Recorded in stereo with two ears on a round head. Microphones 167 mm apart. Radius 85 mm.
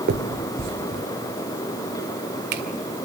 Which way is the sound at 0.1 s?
60° right (ahead or behind).